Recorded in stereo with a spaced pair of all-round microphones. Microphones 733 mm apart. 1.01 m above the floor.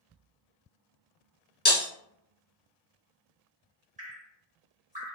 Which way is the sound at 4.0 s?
10° right (ahead or behind).